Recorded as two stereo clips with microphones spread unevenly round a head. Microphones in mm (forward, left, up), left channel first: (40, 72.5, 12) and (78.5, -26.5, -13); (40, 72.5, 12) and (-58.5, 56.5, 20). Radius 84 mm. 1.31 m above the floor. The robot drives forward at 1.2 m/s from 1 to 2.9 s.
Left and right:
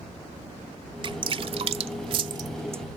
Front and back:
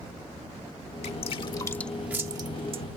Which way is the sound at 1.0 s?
25° right.